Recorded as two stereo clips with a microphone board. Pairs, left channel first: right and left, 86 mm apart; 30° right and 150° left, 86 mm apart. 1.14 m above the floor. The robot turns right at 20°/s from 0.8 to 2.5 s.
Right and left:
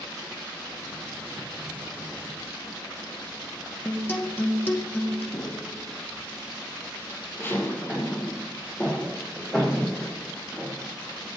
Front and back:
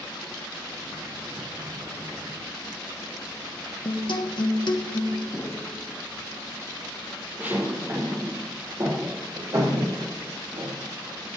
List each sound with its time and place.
3.9 s a guitar: 25° right, 1.3 m
5.3 s footsteps: 85° right, 1.6 m; by 10.9 s 175° right, 3.5 m